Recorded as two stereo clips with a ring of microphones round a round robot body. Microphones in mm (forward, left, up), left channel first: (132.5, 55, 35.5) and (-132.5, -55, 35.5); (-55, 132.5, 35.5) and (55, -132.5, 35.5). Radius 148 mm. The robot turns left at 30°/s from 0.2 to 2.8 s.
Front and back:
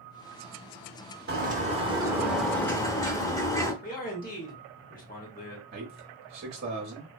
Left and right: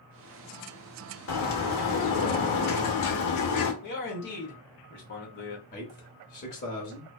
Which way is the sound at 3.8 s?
75° left.